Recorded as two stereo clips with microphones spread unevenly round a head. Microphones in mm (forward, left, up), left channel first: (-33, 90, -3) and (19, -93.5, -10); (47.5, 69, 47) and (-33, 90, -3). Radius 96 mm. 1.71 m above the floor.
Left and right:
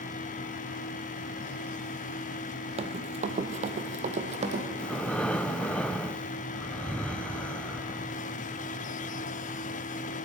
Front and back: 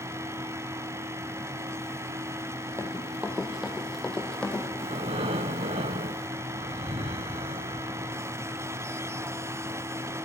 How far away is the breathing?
About 0.6 m.